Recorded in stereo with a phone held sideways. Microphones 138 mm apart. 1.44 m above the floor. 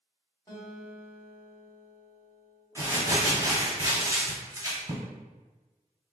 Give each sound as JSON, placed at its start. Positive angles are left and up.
{"t": 0.5, "sound": "a guitar", "side_deg": 25, "distance_m": 1.5}
{"t": 2.8, "sound": "crumpling", "side_deg": -20, "distance_m": 1.4}